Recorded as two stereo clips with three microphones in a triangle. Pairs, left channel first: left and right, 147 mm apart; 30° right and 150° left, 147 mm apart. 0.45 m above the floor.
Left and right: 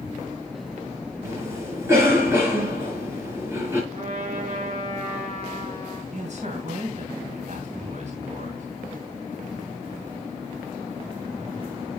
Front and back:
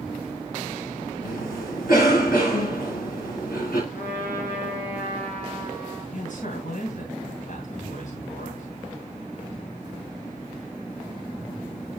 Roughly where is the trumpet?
Ahead right.